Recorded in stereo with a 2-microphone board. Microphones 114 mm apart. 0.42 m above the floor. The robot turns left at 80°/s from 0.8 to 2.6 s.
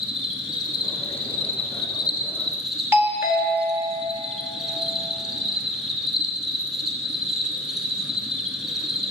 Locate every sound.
0.0 s an insect: 140° left, 1.0 m; by 9.1 s 5° right, 1.0 m
2.9 s a doorbell: 20° right (ahead or behind), 1.2 m